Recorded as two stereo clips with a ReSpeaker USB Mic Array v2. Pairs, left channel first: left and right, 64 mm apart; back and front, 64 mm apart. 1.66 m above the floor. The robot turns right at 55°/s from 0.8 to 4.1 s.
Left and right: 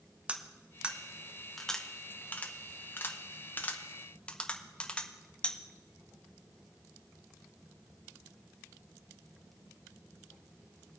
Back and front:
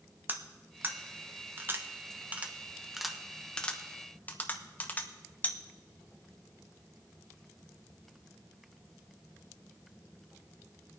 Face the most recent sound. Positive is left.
turn(degrees=145)